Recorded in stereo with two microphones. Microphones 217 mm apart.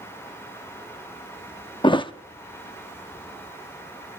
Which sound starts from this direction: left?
A thud, at 1.8 s.